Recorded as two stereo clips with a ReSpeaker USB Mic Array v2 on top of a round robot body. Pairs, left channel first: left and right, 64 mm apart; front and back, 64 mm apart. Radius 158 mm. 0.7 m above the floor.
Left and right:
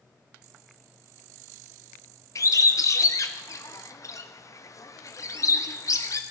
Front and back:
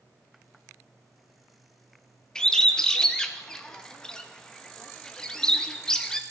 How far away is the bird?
About 0.9 m.